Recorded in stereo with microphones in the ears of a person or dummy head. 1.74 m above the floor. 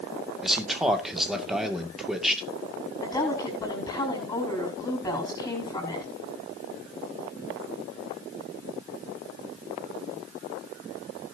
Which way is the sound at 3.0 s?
20° left (ahead or behind).